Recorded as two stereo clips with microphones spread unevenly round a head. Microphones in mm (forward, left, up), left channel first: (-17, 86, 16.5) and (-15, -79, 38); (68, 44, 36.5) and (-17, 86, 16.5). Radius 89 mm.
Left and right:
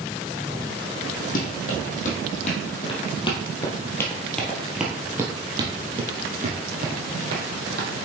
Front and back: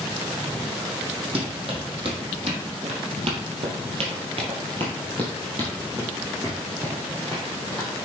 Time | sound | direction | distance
1.4 | running footsteps | 130° left | 3 m